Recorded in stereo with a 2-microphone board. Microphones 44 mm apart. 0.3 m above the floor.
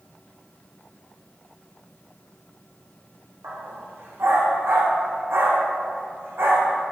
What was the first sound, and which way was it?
A dog barking, 70° right (ahead or behind).